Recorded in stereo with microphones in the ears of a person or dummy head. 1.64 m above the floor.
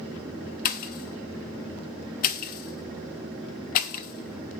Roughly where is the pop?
Left.